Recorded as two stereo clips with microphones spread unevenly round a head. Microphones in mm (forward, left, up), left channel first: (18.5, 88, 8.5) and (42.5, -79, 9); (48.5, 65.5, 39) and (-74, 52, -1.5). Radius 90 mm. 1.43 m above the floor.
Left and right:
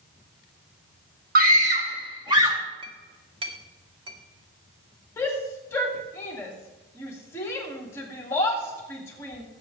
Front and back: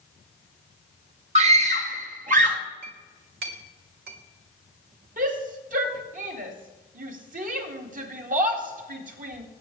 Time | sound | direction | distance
1.4 | a scream | 125° right | 1.6 m
2.8 | a clink | 145° right | 1.6 m
5.2 | a shout | 175° left | 2 m